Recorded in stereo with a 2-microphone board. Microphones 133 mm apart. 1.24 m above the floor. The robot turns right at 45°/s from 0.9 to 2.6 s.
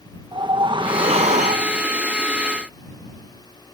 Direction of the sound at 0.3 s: 140° right.